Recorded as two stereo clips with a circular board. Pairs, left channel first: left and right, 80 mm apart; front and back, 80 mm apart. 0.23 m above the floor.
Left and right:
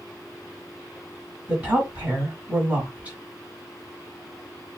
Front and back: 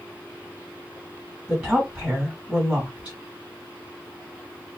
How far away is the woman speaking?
About 1.6 m.